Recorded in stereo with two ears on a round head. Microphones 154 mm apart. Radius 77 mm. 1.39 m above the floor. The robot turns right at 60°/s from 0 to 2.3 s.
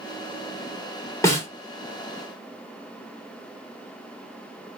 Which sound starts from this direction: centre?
A snare drum, at 1.2 s.